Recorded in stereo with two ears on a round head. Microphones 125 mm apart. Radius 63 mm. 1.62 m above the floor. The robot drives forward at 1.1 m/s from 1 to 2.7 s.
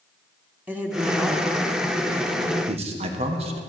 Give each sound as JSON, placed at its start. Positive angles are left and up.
{"t": 0.7, "sound": "a woman speaking", "side_deg": -10, "distance_m": 1.5}
{"t": 2.7, "sound": "a man speaking", "side_deg": -45, "distance_m": 1.5}